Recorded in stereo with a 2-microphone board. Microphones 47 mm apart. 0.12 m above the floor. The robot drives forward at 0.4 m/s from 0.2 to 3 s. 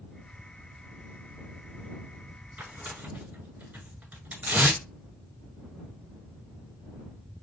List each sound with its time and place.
2.6 s tearing paper: 35° right (ahead or behind), 1.7 m